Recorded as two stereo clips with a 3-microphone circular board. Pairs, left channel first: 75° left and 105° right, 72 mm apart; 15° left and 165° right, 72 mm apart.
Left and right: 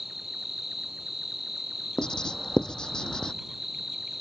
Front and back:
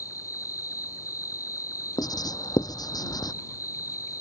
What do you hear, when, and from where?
0.0 s an insect: 20° right
2.0 s writing: 5° right